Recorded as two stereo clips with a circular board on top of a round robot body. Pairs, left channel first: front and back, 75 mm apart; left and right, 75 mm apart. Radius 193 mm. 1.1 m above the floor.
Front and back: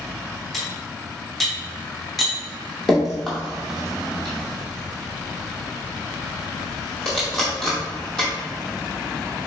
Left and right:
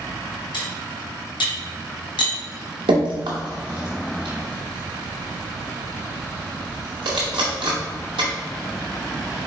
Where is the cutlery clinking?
90° left, 0.7 m.